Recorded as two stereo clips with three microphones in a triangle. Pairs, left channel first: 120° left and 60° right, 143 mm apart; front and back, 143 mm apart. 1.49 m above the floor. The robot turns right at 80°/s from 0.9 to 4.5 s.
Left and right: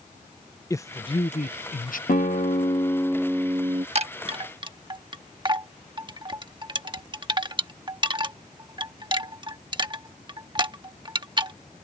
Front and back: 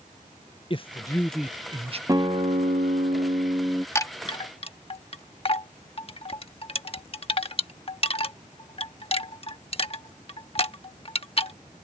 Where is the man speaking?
50° left; by 2.0 s 140° left.